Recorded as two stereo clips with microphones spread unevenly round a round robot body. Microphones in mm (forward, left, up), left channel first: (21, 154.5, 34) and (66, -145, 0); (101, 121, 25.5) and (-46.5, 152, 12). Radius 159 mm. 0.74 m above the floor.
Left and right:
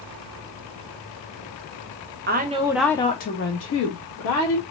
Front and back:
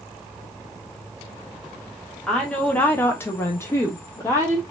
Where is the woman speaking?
100° right, 0.6 m; by 4.6 s 65° left, 1.2 m.